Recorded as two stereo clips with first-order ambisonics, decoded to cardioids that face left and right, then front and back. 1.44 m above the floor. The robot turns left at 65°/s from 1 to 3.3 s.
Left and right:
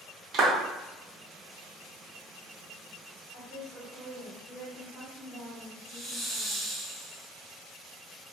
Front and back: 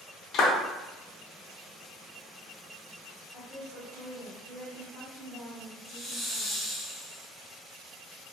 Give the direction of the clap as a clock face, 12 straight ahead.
1 o'clock.